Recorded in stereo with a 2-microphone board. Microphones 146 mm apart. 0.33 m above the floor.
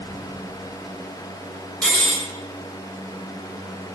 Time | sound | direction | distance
1.8 | cutlery clinking | 5° left (ahead or behind) | 0.9 m